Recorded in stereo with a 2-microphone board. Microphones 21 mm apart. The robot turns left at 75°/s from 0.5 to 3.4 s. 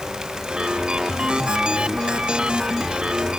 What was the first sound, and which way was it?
Only background noise.